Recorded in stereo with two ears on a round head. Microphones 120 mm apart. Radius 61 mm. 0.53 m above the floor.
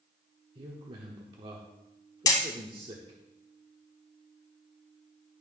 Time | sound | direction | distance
0.6 | a man speaking | 40° right (ahead or behind) | 1.0 m
2.3 | hammering | 30° left (ahead or behind) | 1.4 m